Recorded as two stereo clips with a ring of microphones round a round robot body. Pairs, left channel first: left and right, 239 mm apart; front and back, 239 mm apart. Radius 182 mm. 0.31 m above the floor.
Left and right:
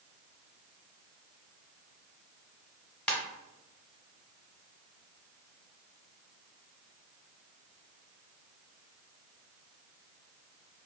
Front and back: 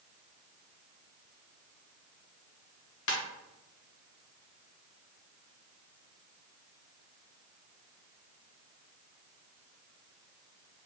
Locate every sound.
3.1 s a ringtone: 5° left, 1.2 m